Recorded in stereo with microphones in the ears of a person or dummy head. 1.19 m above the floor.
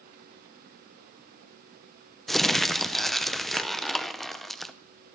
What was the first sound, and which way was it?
Crumpling, centre (ahead or behind).